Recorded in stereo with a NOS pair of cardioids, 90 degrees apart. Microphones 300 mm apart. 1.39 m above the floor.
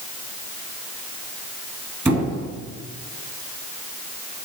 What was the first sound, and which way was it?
A squeak, 10° right.